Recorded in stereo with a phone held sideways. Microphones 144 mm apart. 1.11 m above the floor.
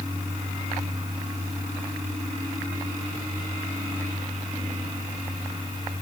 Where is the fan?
30° right (ahead or behind), 6 m.